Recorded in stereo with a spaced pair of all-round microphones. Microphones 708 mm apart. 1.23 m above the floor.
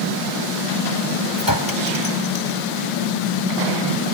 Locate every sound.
1.4 s a clink: 25° left (ahead or behind)